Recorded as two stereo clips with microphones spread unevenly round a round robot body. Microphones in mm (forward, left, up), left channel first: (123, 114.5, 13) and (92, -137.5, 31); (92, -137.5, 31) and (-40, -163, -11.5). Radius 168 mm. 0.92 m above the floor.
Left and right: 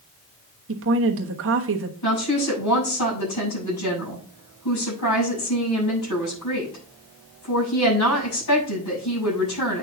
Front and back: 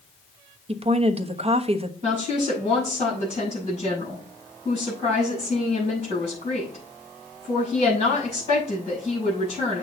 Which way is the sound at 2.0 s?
120° left.